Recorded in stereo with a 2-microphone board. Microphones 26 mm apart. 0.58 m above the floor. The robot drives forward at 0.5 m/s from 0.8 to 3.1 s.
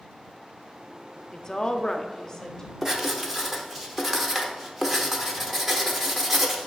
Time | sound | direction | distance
1.3 | a woman speaking | 25° left (ahead or behind) | 0.6 m
2.8 | writing | 15° right (ahead or behind) | 0.9 m